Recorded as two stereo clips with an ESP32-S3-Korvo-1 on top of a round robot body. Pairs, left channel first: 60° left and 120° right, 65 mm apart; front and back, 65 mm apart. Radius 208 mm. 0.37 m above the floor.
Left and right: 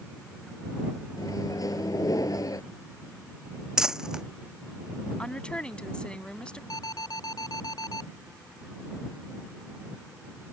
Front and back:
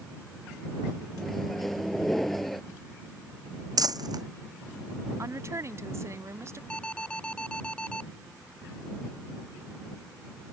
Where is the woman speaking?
135° left.